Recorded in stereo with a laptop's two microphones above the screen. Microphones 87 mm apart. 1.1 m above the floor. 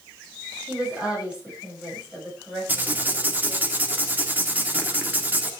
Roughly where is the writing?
Centre.